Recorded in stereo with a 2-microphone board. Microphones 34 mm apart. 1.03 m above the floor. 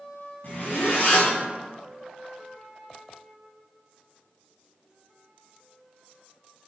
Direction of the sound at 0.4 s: 65° left (ahead or behind).